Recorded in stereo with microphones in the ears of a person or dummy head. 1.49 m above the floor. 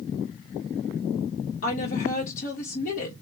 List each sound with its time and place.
1.6 s a woman speaking: 45° left (ahead or behind), 1.1 m